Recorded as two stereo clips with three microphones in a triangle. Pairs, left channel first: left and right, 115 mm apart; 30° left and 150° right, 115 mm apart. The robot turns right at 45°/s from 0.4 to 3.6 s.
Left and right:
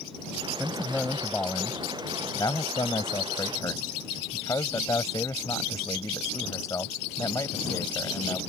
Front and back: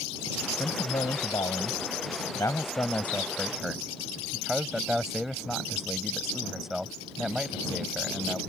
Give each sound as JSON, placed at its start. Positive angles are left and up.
{"t": 0.6, "sound": "a man speaking", "azimuth_deg": -10}